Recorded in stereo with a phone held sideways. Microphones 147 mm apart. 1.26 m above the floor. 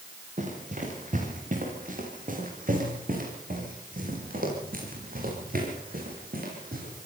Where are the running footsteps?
60° right (ahead or behind), 7.5 m; by 7.0 s 80° right, 12 m.